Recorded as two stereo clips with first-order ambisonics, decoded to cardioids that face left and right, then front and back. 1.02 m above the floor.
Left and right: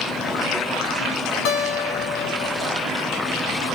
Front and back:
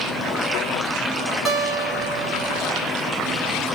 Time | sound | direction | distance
1.4 | a guitar | 105° left | 1.2 m